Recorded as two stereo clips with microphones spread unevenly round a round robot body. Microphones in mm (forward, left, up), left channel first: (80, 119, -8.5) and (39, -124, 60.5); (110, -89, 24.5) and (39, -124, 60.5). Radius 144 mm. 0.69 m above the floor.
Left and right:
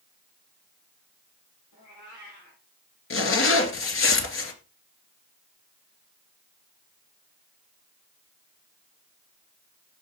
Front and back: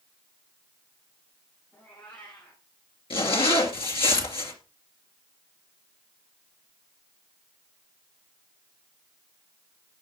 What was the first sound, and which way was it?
A cat meowing, 80° left.